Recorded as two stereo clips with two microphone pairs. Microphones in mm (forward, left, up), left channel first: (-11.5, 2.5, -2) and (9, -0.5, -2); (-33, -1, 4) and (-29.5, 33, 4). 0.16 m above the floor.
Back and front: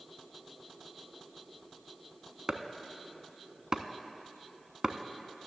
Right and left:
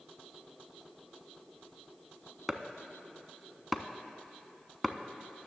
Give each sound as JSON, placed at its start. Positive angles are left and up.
{"t": 2.5, "sound": "chopping", "azimuth_deg": 0, "distance_m": 0.5}